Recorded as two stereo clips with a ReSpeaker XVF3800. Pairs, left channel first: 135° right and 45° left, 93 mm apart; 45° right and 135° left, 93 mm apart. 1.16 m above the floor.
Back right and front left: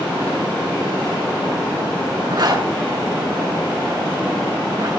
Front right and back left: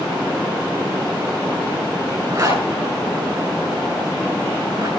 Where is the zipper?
80° left, 7 m.